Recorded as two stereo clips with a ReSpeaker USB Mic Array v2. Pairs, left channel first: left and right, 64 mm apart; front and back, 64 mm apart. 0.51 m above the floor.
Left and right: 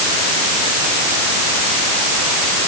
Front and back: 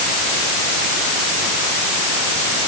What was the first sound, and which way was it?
Only background noise.